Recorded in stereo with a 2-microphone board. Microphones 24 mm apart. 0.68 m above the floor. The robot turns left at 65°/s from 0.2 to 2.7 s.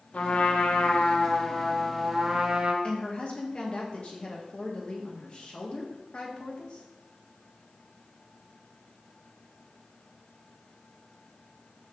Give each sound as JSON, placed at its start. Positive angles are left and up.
{"t": 0.1, "sound": "a trumpet", "azimuth_deg": 115, "distance_m": 0.6}
{"t": 2.8, "sound": "a woman speaking", "side_deg": 45, "distance_m": 0.7}